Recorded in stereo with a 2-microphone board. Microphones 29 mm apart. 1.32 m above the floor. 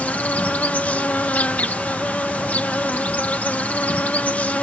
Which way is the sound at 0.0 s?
70° left (ahead or behind).